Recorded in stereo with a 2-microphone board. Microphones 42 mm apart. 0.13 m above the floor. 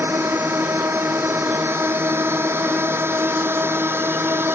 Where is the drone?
75° right (ahead or behind); by 4.5 s 70° right (ahead or behind).